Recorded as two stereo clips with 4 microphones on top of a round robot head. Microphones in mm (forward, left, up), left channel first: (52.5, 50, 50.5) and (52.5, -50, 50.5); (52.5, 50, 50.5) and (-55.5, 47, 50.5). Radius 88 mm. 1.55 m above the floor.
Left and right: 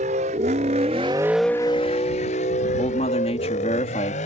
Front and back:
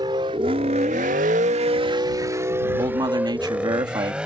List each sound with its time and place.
0.0 s a vehicle: 115° right; by 4.3 s 100° left
2.8 s a man speaking: 130° left